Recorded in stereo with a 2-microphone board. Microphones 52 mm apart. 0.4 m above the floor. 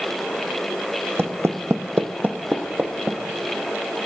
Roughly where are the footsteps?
Right.